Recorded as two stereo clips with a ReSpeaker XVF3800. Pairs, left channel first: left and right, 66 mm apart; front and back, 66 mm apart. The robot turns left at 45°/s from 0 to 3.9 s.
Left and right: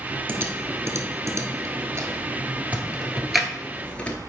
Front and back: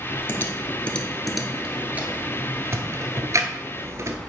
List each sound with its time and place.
0.3 s typing on a keyboard: 40° right, 1.1 m; by 4.2 s 155° left, 1.1 m